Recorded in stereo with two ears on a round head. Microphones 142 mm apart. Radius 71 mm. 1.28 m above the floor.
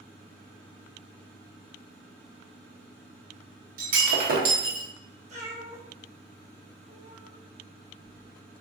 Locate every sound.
3.8 s breaking glass: 60° right (ahead or behind), 0.8 m
5.3 s a cat meowing: 40° right (ahead or behind), 1.0 m